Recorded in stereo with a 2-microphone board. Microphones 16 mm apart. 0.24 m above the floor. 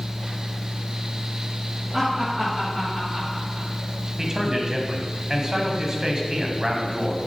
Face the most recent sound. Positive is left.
turn(degrees=-30)  # may be behind; listen again after turning